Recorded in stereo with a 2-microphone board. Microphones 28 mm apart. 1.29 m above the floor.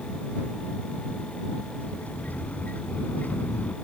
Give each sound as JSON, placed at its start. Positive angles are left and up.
{"t": 1.8, "sound": "a sliding door", "side_deg": 65}